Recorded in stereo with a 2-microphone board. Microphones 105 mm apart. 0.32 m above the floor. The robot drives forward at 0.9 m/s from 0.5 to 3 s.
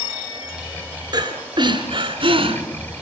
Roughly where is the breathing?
Right.